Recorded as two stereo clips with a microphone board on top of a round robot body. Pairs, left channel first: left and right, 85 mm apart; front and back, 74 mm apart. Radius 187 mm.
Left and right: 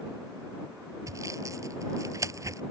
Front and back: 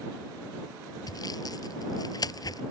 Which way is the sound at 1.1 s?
35° right.